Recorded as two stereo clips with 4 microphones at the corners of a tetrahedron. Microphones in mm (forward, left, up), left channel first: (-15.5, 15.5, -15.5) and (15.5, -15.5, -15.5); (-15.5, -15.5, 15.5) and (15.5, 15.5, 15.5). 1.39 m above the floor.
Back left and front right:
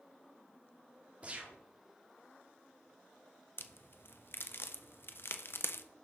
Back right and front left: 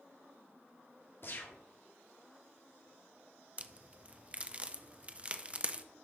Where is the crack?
105° left, 0.6 m.